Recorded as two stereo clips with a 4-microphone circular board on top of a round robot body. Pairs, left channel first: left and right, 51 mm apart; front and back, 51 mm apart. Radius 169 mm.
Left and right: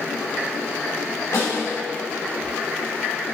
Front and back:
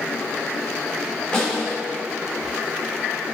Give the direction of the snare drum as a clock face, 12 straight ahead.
9 o'clock.